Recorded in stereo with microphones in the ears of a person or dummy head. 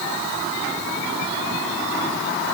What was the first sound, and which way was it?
Only background noise.